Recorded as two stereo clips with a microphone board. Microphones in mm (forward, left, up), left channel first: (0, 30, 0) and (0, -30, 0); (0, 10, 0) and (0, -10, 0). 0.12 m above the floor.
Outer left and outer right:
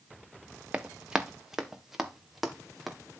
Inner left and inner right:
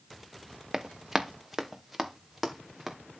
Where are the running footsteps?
20° right (ahead or behind), 1.2 m; by 3.0 s centre (ahead or behind), 2.5 m.